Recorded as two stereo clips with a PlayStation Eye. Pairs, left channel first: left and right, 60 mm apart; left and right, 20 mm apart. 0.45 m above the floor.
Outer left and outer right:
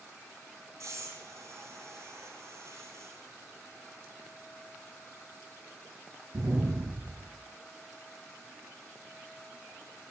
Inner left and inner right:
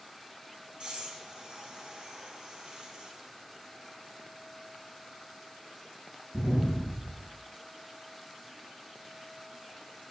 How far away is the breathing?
About 3 m.